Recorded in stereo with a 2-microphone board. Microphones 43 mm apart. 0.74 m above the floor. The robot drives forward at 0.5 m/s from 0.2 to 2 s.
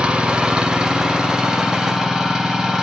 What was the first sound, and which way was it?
An engine running, 25° right (ahead or behind).